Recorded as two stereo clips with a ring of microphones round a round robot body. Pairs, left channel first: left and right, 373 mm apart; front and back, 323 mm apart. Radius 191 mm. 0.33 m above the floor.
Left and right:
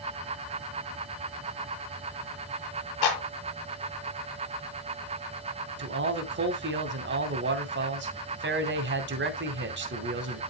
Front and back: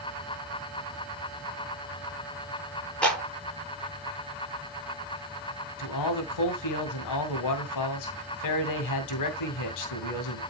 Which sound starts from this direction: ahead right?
A man speaking, at 5.8 s.